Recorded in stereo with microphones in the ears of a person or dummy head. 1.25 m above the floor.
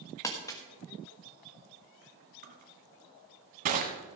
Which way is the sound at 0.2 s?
15° left (ahead or behind).